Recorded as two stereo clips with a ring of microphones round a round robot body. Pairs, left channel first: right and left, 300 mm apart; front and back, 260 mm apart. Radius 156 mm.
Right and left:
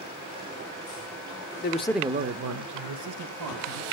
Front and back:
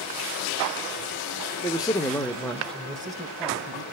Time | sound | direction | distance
1.6 | a man speaking | 70° right | 0.9 m